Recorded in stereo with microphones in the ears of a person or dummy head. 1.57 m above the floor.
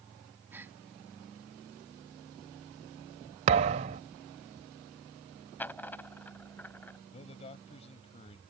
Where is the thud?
25° right (ahead or behind).